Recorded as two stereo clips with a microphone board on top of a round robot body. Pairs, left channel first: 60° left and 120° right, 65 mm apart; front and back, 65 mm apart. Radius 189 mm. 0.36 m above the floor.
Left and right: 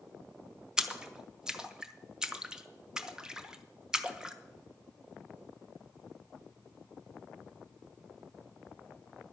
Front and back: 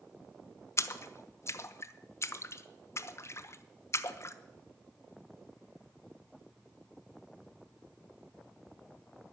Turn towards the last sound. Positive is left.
turn(degrees=-40)